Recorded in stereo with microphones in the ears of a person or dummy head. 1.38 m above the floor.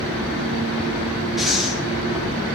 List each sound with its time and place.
1.4 s breathing: centre (ahead or behind), 0.7 m